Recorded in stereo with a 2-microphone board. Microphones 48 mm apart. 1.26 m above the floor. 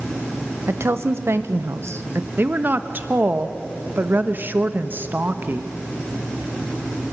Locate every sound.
0.7 s a woman speaking: 60° right (ahead or behind), 1.1 m
2.4 s a woman speaking: 40° right (ahead or behind), 1.2 m